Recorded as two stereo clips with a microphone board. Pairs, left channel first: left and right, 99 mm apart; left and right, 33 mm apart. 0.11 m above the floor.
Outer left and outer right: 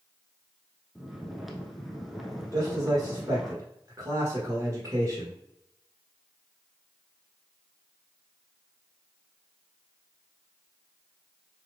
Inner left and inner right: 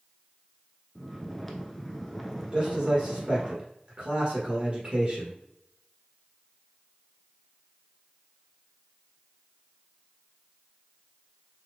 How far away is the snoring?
About 0.7 m.